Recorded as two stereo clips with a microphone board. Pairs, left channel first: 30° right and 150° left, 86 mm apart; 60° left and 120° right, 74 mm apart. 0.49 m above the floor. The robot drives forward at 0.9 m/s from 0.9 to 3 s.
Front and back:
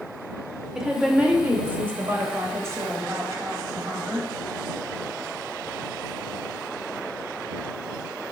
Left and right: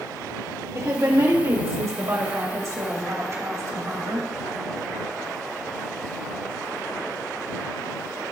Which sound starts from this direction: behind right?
A woman speaking, at 0.8 s.